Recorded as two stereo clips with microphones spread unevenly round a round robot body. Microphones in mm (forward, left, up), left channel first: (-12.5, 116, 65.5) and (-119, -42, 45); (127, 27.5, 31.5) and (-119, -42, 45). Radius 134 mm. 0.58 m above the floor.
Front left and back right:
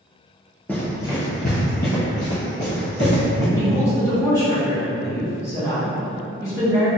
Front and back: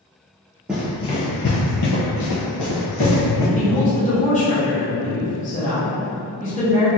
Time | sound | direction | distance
0.7 | running footsteps | 120° left | 0.6 m
3.5 | a woman speaking | 20° right | 0.9 m